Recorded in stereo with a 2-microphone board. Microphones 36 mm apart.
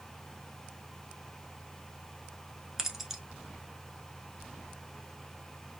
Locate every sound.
2.8 s keys jangling: 10° right (ahead or behind), 0.8 m